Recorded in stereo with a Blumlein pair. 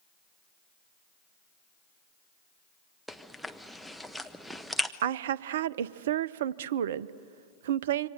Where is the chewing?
Straight ahead, 0.9 m.